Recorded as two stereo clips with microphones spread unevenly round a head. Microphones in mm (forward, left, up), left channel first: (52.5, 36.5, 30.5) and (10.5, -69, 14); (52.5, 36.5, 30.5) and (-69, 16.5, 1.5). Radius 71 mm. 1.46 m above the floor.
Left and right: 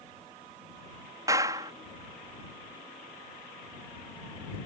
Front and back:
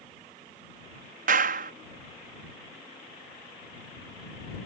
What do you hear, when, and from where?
1.3 s a clap: straight behind